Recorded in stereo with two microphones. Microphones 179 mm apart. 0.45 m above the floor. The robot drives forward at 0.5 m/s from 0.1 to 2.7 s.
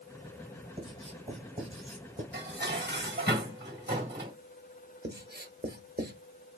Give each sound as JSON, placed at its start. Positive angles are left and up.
{"t": 0.8, "sound": "writing", "side_deg": -35, "distance_m": 2.0}
{"t": 2.3, "sound": "dishes clattering", "side_deg": -70, "distance_m": 1.7}
{"t": 5.0, "sound": "writing", "side_deg": -65, "distance_m": 1.0}